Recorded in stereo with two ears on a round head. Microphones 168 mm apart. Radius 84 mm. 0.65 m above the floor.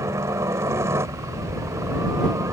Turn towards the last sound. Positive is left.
turn(degrees=-15)  # may be behind; listen again after turning